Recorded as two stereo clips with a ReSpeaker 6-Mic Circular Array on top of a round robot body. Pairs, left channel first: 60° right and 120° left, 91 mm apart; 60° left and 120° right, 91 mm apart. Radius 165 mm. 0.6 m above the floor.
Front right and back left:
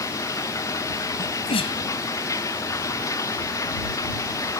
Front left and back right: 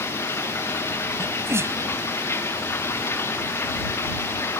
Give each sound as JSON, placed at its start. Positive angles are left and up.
{"t": 0.0, "sound": "running water", "azimuth_deg": -5}
{"t": 1.2, "sound": "a sneeze", "azimuth_deg": -60}